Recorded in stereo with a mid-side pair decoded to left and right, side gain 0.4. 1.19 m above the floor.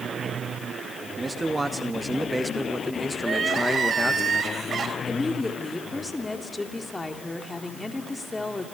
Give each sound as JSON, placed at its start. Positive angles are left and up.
{"t": 1.2, "sound": "a man speaking", "azimuth_deg": -25, "distance_m": 2.0}
{"t": 3.2, "sound": "crying", "azimuth_deg": -50, "distance_m": 4.0}
{"t": 5.1, "sound": "a woman speaking", "azimuth_deg": 20, "distance_m": 3.0}